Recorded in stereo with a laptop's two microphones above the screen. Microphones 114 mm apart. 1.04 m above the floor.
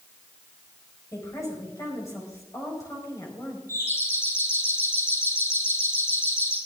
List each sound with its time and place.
1.1 s a woman speaking: 30° left (ahead or behind), 5 m
3.7 s a doorbell: 25° left (ahead or behind), 7 m